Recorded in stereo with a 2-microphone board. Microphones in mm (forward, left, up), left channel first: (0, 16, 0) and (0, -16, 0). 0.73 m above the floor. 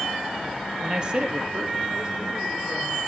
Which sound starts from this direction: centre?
A man speaking, at 0.8 s.